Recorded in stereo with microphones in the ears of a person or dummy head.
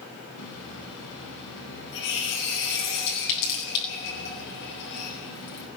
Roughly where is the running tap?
Left.